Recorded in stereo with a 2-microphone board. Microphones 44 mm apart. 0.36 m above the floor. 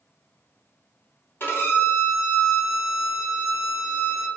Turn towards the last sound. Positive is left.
turn(degrees=65)  # may be behind; listen again after turning